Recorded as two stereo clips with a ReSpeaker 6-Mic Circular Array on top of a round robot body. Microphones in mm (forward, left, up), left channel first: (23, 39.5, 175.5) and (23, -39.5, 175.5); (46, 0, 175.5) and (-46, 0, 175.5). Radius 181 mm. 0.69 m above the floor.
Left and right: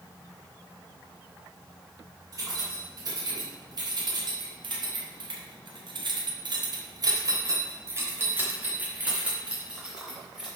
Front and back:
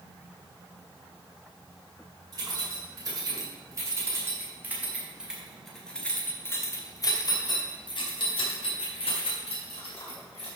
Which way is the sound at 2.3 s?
135° right.